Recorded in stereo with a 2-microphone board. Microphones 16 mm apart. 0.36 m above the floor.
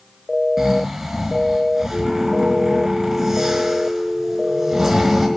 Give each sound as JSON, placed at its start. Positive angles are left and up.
{"t": 0.6, "sound": "snoring", "side_deg": -30, "distance_m": 5.0}